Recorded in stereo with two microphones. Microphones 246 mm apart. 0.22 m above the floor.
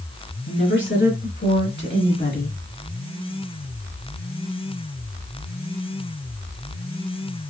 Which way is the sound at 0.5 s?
55° left (ahead or behind).